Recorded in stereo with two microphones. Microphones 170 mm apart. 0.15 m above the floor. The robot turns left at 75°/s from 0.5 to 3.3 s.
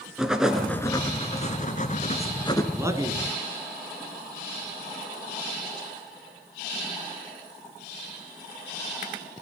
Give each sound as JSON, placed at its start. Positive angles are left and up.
{"t": 0.2, "sound": "writing", "azimuth_deg": -175, "distance_m": 1.9}
{"t": 2.7, "sound": "a man speaking", "side_deg": -15, "distance_m": 1.7}